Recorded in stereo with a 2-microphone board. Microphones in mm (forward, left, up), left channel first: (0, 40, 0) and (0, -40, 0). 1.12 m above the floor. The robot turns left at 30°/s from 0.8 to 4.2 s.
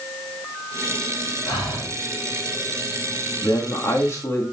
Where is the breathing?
65° left (ahead or behind), 6.5 m; by 1.9 s 50° left (ahead or behind), 6.5 m.